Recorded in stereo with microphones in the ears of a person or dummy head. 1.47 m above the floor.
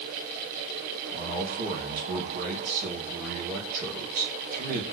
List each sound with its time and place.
1.1 s a man speaking: 45° right (ahead or behind), 2.5 m